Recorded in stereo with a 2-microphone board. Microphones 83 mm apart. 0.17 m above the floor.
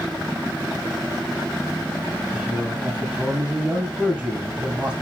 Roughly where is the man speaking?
Centre.